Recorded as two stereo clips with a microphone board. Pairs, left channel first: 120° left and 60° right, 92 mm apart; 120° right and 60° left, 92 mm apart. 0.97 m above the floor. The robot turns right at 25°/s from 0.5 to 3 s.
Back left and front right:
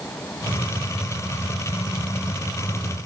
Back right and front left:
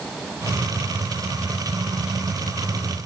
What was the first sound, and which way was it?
Only background noise.